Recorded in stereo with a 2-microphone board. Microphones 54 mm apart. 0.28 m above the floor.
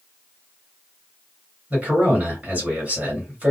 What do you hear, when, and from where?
1.7 s a man speaking: 25° right (ahead or behind), 1.8 m